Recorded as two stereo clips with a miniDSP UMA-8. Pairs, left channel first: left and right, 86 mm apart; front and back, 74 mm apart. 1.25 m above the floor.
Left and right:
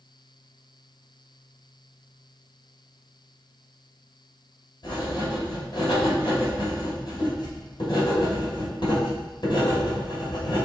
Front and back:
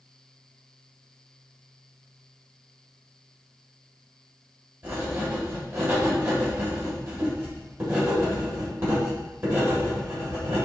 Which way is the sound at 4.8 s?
120° left.